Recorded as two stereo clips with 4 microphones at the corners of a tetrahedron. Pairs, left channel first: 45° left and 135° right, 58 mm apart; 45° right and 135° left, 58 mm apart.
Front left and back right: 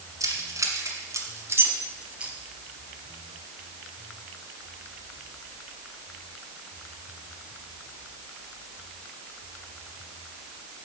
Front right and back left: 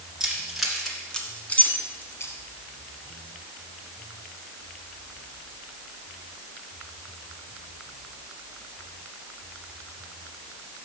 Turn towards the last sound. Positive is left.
turn(degrees=-65)